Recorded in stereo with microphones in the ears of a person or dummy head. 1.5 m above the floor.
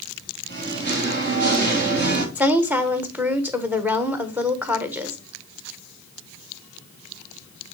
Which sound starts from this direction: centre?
A woman speaking, at 2.4 s.